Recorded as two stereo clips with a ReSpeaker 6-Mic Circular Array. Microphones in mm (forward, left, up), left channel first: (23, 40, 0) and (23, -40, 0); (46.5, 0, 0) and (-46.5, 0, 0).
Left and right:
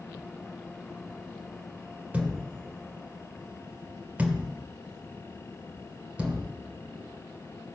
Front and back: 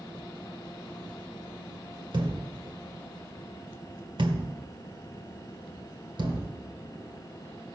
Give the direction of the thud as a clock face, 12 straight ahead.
5 o'clock.